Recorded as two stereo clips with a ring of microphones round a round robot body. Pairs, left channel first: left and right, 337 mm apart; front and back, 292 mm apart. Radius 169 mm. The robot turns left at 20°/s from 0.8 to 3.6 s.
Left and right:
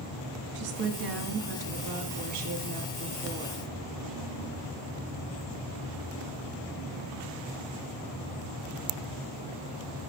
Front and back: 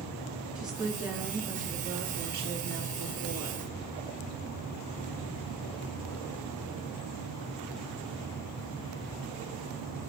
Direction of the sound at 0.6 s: 95° right.